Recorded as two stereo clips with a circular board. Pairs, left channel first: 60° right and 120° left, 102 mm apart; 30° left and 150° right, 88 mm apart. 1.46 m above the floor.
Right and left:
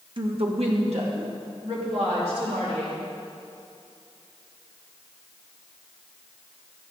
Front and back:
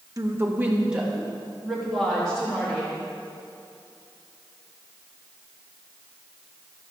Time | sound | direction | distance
0.2 | a woman speaking | 160° left | 1.2 m